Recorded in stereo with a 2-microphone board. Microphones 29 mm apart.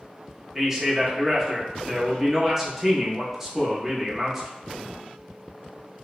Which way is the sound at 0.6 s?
5° right (ahead or behind).